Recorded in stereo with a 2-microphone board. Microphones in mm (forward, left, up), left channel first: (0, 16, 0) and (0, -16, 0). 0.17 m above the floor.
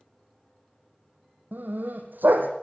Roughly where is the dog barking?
Right.